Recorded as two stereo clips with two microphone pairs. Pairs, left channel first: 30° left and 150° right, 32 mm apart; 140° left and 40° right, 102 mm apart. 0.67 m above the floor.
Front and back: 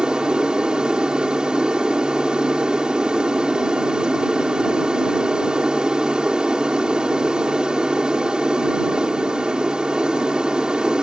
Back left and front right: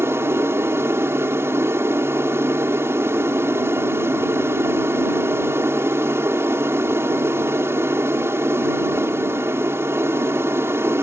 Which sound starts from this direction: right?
An aircraft, at 0.0 s.